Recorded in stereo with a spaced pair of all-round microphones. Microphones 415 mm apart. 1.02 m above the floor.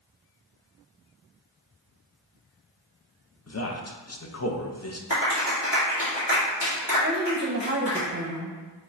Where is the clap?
70° left (ahead or behind), 2 m.